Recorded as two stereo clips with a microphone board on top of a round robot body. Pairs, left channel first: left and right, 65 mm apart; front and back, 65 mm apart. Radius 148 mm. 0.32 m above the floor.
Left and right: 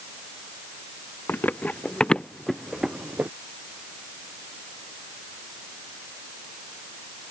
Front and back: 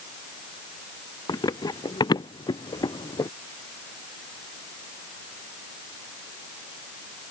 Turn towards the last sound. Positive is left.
turn(degrees=-25)